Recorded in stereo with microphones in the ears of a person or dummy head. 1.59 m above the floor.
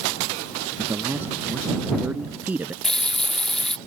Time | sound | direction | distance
0.8 | a man speaking | 10° right (ahead or behind) | ?
2.8 | a running tap | 5° left (ahead or behind) | ?